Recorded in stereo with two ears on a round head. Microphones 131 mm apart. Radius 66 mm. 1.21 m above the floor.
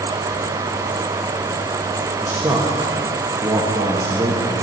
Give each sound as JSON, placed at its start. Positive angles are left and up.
{"t": 2.2, "sound": "a man speaking", "side_deg": -15, "distance_m": 1.4}